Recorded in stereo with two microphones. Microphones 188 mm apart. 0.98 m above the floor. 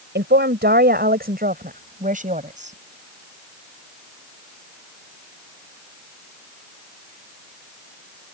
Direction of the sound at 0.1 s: 70° right (ahead or behind).